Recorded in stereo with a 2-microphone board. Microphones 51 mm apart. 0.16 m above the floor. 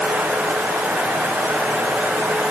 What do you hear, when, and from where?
Only background noise.